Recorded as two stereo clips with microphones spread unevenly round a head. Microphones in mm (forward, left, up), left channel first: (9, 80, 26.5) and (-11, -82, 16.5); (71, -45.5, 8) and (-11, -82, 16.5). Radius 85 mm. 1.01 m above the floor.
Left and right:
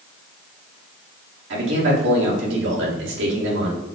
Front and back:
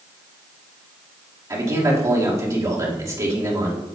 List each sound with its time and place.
1.5 s a man speaking: 100° right, 2.5 m